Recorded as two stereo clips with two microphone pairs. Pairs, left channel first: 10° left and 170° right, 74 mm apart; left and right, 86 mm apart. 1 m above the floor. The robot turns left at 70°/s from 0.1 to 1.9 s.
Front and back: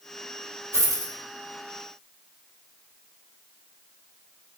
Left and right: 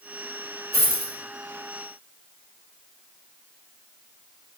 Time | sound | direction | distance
0.7 | a dropped coin | 125° right | 1.1 m